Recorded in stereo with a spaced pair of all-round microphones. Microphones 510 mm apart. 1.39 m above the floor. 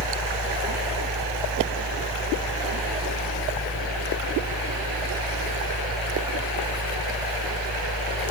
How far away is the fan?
About 1.5 m.